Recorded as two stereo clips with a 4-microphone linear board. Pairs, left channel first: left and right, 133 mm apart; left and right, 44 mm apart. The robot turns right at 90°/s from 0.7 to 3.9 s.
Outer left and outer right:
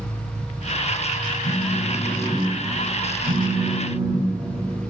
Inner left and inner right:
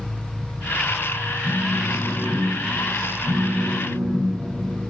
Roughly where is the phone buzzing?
Left.